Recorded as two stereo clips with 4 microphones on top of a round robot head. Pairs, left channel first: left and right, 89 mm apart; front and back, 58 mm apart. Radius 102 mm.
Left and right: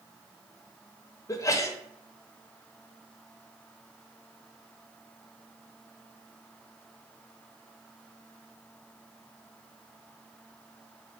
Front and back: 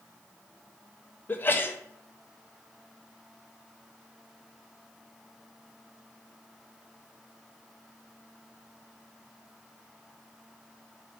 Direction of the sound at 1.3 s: 45° left.